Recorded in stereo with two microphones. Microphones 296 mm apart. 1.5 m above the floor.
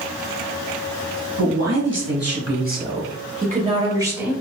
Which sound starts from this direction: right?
A man speaking, at 1.4 s.